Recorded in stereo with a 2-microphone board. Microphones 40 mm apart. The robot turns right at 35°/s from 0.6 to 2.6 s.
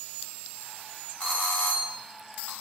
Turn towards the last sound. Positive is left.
turn(degrees=85)